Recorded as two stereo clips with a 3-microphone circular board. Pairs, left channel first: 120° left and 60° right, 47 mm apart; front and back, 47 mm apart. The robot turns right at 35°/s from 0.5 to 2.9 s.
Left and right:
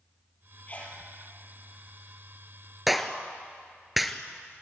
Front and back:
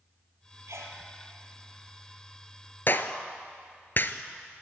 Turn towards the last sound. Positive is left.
turn(degrees=25)